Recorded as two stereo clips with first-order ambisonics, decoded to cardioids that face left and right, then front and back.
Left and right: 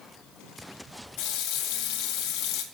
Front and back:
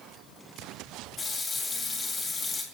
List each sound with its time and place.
1.2 s a running tap: 70° left, 2 m